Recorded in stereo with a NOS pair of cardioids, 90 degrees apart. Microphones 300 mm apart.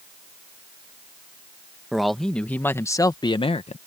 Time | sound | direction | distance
1.9 | a man speaking | straight ahead | ?